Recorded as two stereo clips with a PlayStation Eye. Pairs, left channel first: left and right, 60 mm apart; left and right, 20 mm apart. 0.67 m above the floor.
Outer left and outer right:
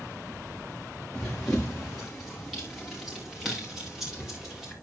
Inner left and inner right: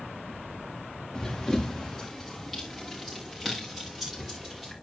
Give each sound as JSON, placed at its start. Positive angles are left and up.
{"t": 1.1, "sound": "running footsteps", "side_deg": 10, "distance_m": 4.0}